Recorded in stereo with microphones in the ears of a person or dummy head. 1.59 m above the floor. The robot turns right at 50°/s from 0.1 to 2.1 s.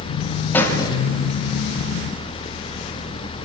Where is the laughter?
No laughter in this recording.